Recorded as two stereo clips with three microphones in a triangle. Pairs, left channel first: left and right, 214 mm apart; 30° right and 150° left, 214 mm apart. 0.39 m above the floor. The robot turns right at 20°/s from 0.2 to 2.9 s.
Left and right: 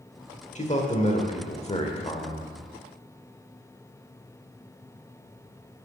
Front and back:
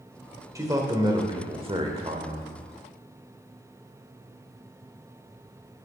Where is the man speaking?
90° left, 1.2 m; by 2.5 s 130° left, 1.2 m.